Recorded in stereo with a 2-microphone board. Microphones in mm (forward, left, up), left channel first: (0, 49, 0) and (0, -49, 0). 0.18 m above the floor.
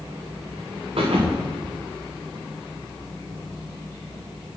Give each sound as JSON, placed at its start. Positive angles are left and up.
{"t": 1.0, "sound": "a thud", "side_deg": -65, "distance_m": 3.0}